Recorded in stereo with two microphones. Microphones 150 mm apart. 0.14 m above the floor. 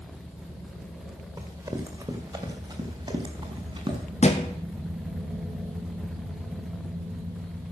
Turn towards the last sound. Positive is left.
turn(degrees=50)  # may be behind; listen again after turning